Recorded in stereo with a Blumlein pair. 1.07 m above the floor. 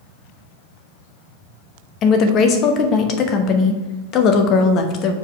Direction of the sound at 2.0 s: 35° left.